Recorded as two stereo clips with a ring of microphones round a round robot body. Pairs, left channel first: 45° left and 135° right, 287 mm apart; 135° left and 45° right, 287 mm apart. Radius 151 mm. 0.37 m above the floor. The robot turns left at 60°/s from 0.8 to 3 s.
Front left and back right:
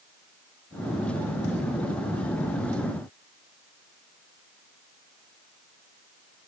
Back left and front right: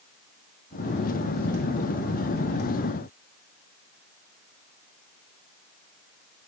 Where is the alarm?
I don't hear an alarm.